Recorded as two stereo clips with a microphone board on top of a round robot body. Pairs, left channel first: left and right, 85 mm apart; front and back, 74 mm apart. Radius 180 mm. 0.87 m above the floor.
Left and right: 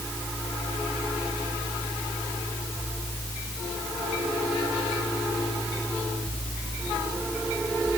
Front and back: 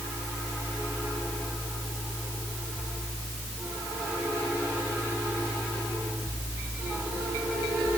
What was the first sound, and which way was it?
Only background noise.